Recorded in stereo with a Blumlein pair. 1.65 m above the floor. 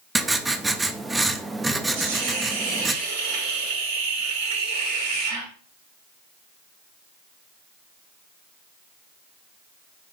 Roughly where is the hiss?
Ahead right.